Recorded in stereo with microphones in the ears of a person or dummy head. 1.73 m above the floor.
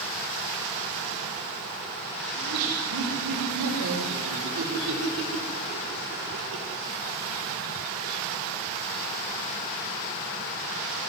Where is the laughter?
80° right, 6.5 m.